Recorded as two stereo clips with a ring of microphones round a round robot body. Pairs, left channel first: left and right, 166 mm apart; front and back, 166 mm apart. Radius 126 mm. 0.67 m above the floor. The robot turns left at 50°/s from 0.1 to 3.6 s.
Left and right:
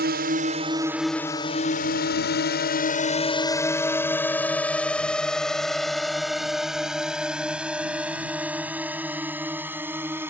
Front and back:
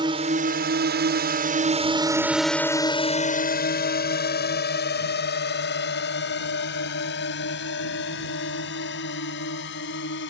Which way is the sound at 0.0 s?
115° right.